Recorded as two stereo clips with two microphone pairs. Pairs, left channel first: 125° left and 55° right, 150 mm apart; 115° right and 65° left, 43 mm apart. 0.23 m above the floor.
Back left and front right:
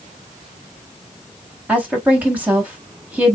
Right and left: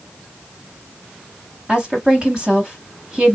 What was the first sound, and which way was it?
A woman speaking, 20° left.